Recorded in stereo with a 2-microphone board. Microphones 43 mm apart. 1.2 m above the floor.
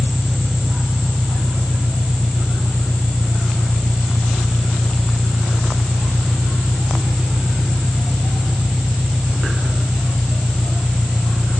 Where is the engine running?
15° right (ahead or behind).